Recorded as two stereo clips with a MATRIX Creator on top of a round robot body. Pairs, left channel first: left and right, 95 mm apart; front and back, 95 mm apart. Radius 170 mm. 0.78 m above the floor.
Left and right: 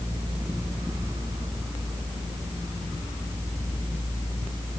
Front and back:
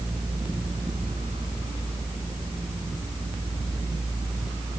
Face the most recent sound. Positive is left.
No sound to turn to.